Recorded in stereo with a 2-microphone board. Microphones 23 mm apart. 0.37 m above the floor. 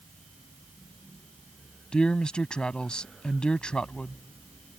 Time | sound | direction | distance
1.9 | a man speaking | 35° left (ahead or behind) | ?